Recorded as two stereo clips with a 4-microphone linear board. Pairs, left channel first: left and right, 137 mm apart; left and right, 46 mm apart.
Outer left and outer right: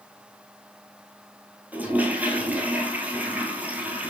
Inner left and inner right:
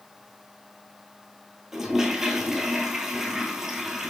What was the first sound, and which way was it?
A toilet flushing, 10° right (ahead or behind).